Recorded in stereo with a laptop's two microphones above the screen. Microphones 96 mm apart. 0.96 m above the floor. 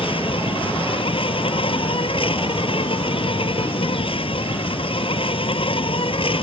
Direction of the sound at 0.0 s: 70° left (ahead or behind).